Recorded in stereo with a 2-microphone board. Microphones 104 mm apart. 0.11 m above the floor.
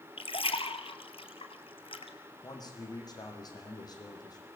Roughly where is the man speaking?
Left.